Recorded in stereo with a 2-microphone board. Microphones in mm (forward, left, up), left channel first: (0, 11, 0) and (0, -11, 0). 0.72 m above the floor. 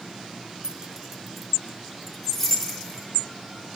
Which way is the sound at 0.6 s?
40° right (ahead or behind).